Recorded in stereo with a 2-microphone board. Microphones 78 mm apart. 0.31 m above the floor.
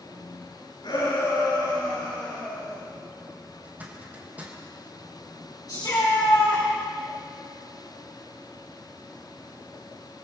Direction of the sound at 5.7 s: 60° left (ahead or behind).